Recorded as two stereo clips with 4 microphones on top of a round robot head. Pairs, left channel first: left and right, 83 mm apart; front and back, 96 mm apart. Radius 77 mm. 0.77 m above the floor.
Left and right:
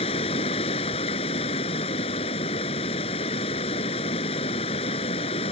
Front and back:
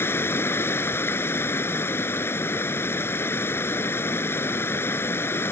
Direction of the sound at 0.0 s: 65° left.